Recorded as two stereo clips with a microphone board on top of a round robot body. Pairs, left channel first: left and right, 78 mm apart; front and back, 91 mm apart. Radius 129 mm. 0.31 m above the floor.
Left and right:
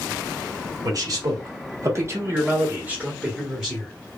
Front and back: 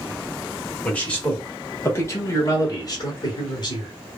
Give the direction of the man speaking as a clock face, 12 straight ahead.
3 o'clock.